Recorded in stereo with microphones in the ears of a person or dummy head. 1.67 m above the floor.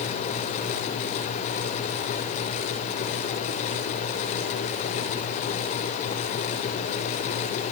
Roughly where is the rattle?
No rattle in this recording.